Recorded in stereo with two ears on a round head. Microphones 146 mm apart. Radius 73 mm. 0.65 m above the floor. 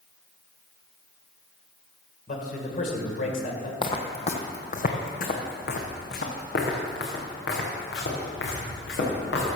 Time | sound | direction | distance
2.3 | a man speaking | 50° left (ahead or behind) | 2.5 m
3.8 | footsteps | 30° left (ahead or behind) | 1.3 m